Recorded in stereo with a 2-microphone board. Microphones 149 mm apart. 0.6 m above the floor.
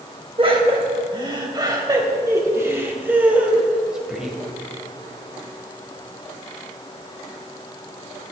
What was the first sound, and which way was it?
Laughter, 35° right (ahead or behind).